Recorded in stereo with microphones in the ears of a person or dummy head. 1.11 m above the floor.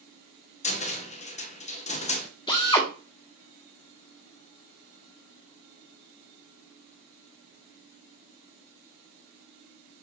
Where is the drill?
20° left (ahead or behind), 1.6 m.